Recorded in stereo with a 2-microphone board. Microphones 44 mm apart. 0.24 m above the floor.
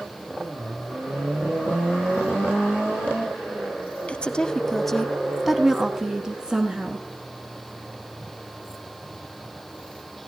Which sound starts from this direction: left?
A woman speaking, at 4.1 s.